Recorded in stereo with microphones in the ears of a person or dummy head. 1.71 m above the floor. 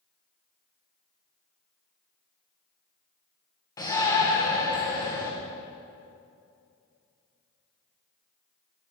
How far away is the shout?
About 1.8 m.